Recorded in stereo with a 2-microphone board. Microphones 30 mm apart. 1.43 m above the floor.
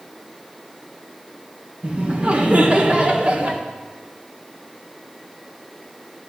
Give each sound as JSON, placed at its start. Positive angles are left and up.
{"t": 1.8, "sound": "laughter", "side_deg": -40, "distance_m": 1.5}